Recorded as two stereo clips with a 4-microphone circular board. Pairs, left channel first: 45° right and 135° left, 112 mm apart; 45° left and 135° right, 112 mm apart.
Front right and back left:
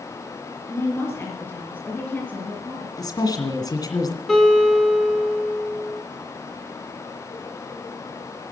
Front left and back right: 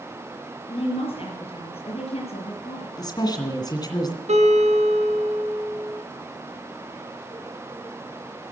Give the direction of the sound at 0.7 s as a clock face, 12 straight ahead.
11 o'clock.